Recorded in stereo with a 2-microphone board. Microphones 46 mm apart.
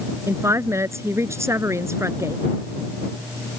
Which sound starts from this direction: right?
A woman speaking, at 0.3 s.